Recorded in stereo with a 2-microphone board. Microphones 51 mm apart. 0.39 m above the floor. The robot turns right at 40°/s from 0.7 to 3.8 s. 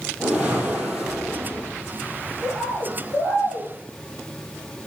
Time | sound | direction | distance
0.2 | a whoosh | 20° right | 2.5 m
2.4 | a bird | 50° left | 5 m